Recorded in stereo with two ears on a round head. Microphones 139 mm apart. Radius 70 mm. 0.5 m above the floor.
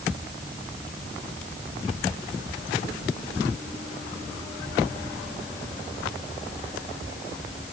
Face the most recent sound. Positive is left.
No sound to turn to.